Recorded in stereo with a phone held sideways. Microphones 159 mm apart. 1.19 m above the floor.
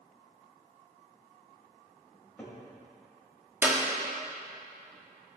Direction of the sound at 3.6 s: 10° right (ahead or behind).